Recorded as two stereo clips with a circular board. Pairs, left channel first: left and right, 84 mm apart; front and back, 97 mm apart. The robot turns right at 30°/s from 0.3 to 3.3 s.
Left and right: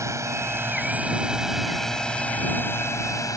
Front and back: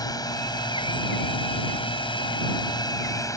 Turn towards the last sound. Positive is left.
turn(degrees=50)